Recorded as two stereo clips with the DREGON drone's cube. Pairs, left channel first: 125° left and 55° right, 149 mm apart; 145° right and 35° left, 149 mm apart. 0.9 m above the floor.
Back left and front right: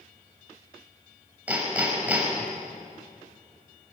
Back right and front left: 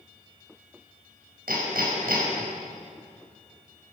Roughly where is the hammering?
Ahead left.